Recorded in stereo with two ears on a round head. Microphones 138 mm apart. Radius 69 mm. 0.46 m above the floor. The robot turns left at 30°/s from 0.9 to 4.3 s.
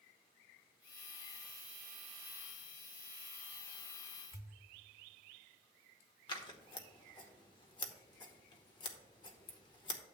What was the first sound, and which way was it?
A pop, 20° left (ahead or behind).